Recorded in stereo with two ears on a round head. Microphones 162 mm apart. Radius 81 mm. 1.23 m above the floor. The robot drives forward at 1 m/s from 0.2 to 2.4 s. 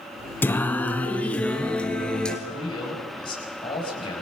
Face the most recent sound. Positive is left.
turn(degrees=25)  # may be behind; listen again after turning